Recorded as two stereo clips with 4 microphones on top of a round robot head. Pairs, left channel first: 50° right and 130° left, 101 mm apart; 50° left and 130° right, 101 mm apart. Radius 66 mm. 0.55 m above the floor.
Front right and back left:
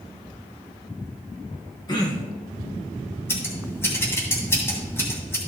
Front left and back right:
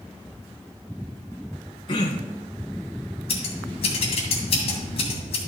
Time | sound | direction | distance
1.9 | throat clearing | straight ahead | 1.9 m
3.3 | scissors | 20° left | 2.5 m